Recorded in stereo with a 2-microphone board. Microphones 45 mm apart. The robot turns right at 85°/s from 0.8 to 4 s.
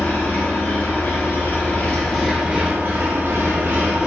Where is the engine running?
60° left, 0.8 m; by 4.1 s 30° right, 0.8 m.